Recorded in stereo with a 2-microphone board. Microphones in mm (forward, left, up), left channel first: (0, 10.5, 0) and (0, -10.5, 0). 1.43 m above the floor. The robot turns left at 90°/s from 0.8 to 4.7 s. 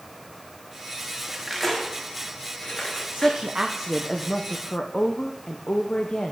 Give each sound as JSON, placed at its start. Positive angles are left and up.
{"t": 1.3, "sound": "cutlery clinking", "side_deg": -20, "distance_m": 1.4}
{"t": 3.1, "sound": "a woman speaking", "azimuth_deg": -110, "distance_m": 0.7}